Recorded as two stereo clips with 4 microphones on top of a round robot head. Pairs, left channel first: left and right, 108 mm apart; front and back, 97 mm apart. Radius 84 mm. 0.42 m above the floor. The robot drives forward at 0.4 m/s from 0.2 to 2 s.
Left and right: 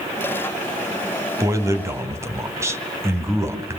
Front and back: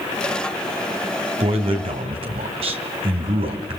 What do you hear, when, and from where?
1.4 s a man speaking: 150° right, 2.5 m; by 3.8 s 155° right, 3 m